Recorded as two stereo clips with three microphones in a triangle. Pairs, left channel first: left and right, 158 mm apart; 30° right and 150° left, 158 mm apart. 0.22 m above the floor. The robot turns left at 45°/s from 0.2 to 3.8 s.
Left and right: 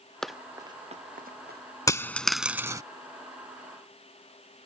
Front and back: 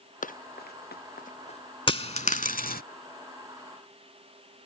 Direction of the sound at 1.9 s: 20° left.